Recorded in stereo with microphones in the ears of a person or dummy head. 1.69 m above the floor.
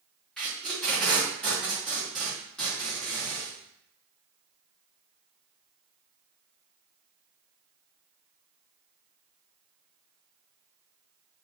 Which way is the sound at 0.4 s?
Centre (ahead or behind).